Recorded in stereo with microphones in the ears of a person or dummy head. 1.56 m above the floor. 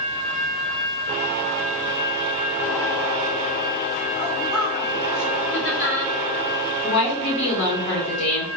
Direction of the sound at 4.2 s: 35° left (ahead or behind).